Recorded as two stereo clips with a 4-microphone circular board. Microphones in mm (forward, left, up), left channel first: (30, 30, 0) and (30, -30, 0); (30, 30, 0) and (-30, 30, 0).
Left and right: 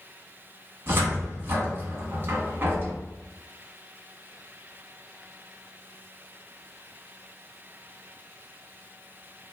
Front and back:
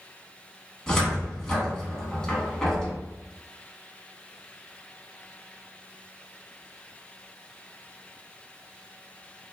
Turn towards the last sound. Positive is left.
turn(degrees=-70)